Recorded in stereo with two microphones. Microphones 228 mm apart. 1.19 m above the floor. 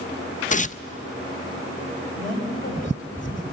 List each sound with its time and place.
0.5 s tearing paper: 30° left (ahead or behind), 0.5 m
2.1 s a woman speaking: 30° left (ahead or behind), 6 m